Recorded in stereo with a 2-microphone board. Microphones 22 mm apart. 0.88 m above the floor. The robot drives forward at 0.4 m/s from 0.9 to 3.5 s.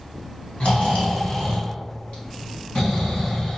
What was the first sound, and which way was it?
Snoring, 70° left (ahead or behind).